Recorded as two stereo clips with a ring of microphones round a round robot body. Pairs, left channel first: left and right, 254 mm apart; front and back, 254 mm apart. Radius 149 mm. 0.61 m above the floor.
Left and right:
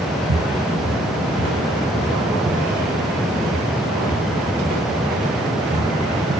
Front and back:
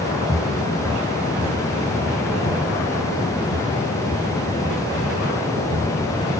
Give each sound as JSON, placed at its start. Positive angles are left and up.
{"t": 0.3, "sound": "footsteps", "azimuth_deg": -100, "distance_m": 3.0}